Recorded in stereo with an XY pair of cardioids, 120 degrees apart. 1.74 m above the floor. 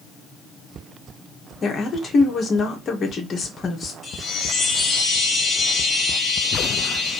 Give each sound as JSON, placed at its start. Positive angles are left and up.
{"t": 1.6, "sound": "a woman speaking", "azimuth_deg": 35, "distance_m": 1.7}
{"t": 4.0, "sound": "a chime", "azimuth_deg": 30, "distance_m": 1.9}